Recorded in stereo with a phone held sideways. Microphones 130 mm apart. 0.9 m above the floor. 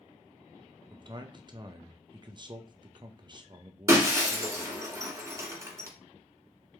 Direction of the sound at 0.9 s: 35° right (ahead or behind).